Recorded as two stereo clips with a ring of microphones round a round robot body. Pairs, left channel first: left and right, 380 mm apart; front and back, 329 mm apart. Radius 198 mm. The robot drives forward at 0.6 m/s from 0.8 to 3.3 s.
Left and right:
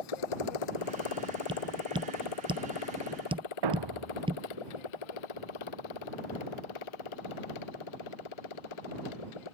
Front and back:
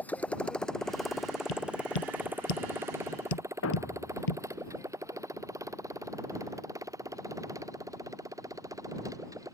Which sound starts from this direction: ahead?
Tapping, at 1.5 s.